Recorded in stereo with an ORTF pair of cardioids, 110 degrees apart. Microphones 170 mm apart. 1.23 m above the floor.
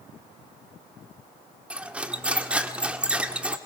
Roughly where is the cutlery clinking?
Ahead.